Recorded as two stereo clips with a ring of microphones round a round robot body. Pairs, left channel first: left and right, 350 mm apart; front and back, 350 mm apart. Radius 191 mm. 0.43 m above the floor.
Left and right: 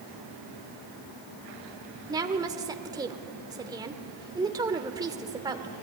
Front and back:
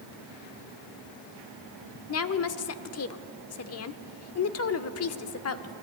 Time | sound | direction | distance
2.1 | a woman speaking | 15° right | 1.1 m